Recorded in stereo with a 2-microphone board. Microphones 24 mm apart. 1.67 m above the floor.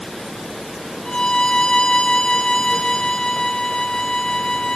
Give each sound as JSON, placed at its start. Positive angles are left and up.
{"t": 1.1, "sound": "a violin", "side_deg": 40, "distance_m": 0.9}